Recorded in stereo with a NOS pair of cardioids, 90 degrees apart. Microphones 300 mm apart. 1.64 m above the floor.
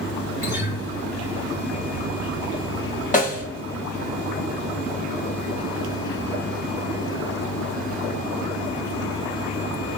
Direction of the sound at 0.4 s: 65° left.